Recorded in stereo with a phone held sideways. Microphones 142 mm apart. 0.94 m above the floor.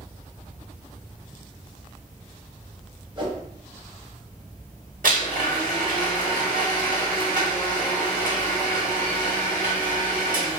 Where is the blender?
70° right (ahead or behind), 1.2 m.